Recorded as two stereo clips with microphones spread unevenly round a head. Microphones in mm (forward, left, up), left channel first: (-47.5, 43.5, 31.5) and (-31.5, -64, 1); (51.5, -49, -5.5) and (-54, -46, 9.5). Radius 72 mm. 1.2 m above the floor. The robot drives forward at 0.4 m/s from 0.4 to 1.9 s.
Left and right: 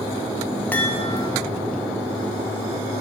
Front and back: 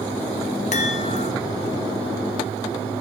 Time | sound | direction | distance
0.7 | a chime | 15° left | 0.8 m